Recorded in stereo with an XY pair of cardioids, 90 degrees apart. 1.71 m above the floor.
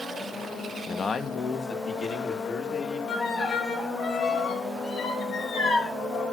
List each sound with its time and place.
0.9 s a man speaking: 40° left, 1.5 m; by 3.0 s 60° left, 4.5 m
3.1 s a violin: 65° left, 4 m